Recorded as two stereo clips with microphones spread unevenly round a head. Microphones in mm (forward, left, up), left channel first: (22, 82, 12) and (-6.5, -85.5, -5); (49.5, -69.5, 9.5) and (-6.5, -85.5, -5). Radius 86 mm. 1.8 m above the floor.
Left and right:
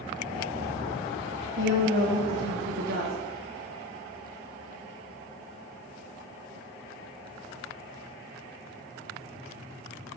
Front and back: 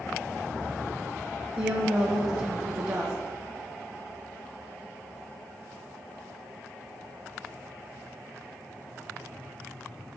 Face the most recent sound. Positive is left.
turn(degrees=-120)